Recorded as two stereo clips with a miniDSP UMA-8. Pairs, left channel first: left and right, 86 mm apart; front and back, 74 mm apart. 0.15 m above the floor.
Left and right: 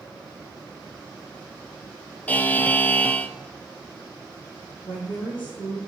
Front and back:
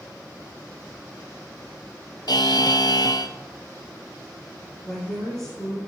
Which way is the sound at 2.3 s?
20° left.